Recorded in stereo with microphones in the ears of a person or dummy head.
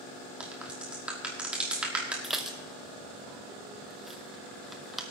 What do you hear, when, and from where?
0.4 s a crack: 5° right (ahead or behind), 1.3 m
2.2 s dishes clattering: centre (ahead or behind), 0.8 m